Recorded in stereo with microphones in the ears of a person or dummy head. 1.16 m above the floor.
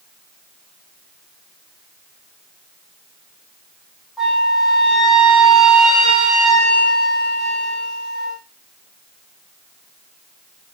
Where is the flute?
Centre (ahead or behind), 0.6 m.